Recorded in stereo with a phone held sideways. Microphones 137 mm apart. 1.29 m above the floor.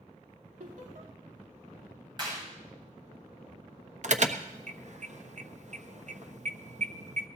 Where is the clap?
35° right (ahead or behind), 7.5 m.